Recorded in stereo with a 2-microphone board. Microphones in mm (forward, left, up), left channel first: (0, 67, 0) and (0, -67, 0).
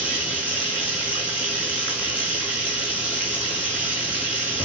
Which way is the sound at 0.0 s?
10° right (ahead or behind).